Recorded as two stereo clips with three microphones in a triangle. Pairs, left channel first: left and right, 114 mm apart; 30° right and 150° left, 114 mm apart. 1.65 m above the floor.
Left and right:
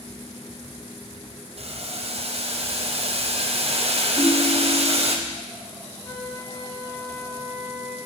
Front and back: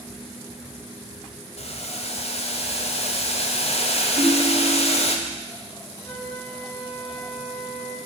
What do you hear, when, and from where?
1.6 s boiling: 60° right, 0.6 m
4.2 s a ringtone: 170° left, 2.5 m
6.0 s a flute: 35° left, 2.5 m